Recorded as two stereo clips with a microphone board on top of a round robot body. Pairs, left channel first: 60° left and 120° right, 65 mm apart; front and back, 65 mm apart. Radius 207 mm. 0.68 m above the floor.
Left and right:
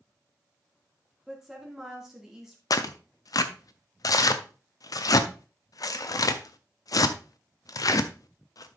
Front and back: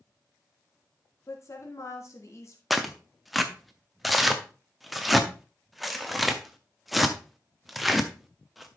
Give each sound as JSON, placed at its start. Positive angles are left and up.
{"t": 1.3, "sound": "a woman speaking", "azimuth_deg": -40, "distance_m": 2.5}
{"t": 2.7, "sound": "tearing paper", "azimuth_deg": 90, "distance_m": 0.6}